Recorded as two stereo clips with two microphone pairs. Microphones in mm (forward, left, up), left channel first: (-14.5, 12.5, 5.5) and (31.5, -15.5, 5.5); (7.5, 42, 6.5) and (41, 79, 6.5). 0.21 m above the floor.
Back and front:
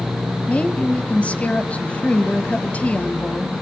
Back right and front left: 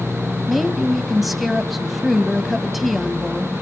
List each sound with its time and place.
0.5 s a woman speaking: 130° left, 1.3 m